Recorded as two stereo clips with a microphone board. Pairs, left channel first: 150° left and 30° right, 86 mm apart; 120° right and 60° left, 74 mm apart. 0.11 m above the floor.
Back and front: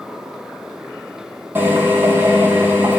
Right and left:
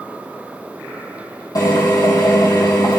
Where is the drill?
95° right, 3.5 m.